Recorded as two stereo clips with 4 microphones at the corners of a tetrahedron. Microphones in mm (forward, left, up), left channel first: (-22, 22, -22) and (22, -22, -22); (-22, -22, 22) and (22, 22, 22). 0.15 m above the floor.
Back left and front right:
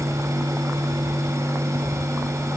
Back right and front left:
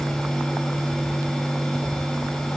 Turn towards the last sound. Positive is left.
No sound to turn to.